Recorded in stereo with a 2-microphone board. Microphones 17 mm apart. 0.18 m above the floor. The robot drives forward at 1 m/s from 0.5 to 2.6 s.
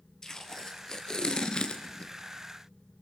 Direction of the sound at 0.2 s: 30° left (ahead or behind).